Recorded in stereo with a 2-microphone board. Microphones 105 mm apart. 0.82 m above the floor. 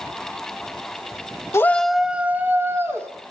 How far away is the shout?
About 0.7 m.